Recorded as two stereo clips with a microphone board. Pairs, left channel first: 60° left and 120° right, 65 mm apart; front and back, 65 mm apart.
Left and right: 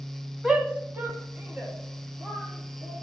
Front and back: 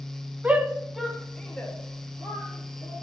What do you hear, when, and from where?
0.4 s a shout: 175° left, 1.0 m; by 2.9 s 60° right, 3 m